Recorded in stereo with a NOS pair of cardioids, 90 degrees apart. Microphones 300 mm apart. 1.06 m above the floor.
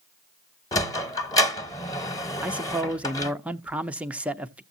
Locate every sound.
0.7 s a sliding door: 10° left, 1.1 m
2.4 s a man speaking: 5° right, 0.6 m